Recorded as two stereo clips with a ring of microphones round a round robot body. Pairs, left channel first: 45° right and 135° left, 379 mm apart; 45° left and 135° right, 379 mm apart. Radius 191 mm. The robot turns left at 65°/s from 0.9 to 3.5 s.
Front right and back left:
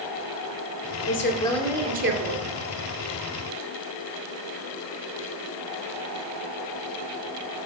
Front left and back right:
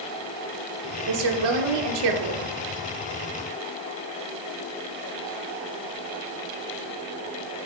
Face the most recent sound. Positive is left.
turn(degrees=105)